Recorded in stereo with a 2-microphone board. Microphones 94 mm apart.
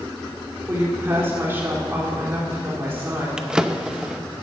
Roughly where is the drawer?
Centre.